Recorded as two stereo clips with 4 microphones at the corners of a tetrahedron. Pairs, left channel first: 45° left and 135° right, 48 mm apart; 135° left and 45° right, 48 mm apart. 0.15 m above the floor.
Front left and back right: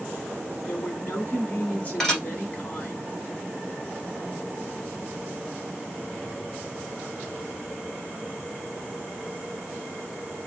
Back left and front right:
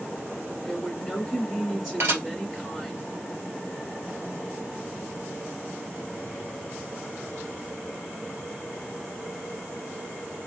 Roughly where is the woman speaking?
Ahead left.